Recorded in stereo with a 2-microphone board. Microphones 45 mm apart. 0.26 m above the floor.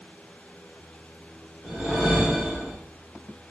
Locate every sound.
1.6 s a whoosh: 10° right (ahead or behind), 1.3 m